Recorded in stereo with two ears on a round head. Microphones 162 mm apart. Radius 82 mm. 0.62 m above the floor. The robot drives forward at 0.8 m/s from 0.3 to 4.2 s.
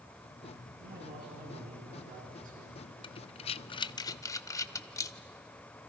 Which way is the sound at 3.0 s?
25° left (ahead or behind).